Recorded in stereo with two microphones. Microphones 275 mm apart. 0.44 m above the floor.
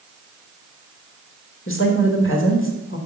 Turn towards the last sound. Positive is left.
turn(degrees=50)  # may be behind; listen again after turning